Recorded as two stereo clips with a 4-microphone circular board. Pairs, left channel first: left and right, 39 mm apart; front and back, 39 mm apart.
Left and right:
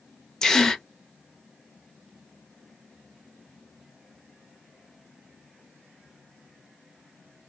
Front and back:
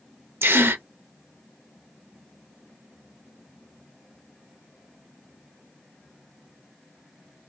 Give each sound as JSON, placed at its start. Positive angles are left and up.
{"t": 0.4, "sound": "a gasp", "azimuth_deg": 165, "distance_m": 0.5}